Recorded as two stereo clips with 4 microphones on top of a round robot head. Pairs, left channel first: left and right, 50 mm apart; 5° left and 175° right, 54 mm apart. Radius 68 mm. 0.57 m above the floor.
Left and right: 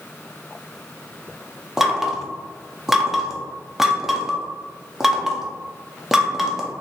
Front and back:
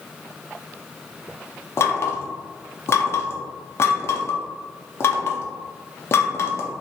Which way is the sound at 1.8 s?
10° right.